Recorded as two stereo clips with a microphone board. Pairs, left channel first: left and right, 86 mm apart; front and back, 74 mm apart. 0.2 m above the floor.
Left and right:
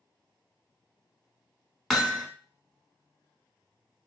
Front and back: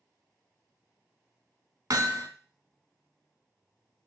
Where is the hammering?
Straight behind, 0.7 m.